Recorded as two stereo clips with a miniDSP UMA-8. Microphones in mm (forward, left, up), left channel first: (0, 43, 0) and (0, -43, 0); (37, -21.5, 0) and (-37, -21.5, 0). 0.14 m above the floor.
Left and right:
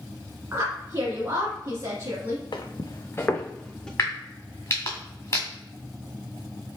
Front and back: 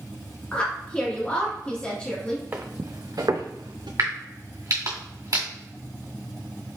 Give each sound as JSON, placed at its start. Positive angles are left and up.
{"t": 0.5, "sound": "a woman speaking", "azimuth_deg": -60, "distance_m": 1.5}
{"t": 2.5, "sound": "footsteps", "azimuth_deg": 120, "distance_m": 0.7}
{"t": 4.0, "sound": "a crack", "azimuth_deg": 145, "distance_m": 2.0}